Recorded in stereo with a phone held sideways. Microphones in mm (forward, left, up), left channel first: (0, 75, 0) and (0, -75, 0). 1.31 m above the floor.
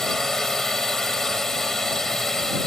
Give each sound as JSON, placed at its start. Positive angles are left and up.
{"t": 0.0, "sound": "a drone", "side_deg": 5}